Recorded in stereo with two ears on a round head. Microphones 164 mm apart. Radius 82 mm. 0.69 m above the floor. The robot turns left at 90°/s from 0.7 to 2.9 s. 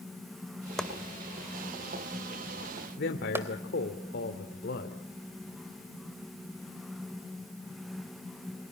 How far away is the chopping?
About 2.0 m.